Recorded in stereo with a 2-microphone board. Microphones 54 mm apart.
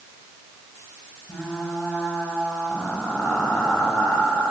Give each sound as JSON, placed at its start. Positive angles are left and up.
{"t": 1.3, "sound": "frying", "side_deg": 25, "distance_m": 3.5}